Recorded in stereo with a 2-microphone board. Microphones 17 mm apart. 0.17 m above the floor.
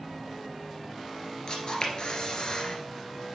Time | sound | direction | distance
1.5 | a camera shutter | 50° left (ahead or behind) | 1.8 m